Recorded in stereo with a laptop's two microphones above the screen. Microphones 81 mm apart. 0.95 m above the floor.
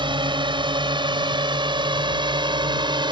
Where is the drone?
75° right (ahead or behind); by 3.1 s 70° right (ahead or behind).